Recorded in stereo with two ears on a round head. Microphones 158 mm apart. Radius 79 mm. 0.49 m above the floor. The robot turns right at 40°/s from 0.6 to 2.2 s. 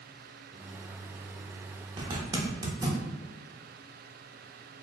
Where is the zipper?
25° right (ahead or behind), 1.0 m; by 3.0 s 20° right (ahead or behind), 1.0 m.